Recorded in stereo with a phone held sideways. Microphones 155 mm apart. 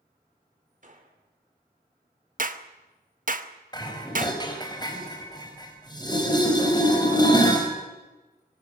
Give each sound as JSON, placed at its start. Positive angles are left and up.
{"t": 0.8, "sound": "a gunshot", "side_deg": -55, "distance_m": 3.0}
{"t": 2.4, "sound": "a clap", "side_deg": -60, "distance_m": 1.1}
{"t": 3.7, "sound": "dishes clattering", "side_deg": 30, "distance_m": 4.0}